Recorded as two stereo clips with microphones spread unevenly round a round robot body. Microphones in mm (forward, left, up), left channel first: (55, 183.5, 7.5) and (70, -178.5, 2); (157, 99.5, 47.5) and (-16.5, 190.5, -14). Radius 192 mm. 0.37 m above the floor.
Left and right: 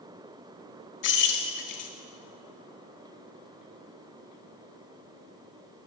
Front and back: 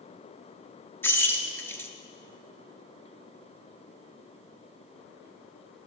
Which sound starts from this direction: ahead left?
Keys jangling, at 1.0 s.